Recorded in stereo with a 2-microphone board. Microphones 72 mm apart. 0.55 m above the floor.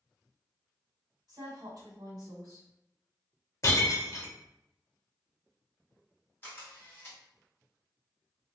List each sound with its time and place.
1.3 s a woman speaking: 60° right (ahead or behind), 1.4 m
3.6 s breaking glass: 40° left (ahead or behind), 0.8 m
6.4 s a camera shutter: 25° left (ahead or behind), 2.0 m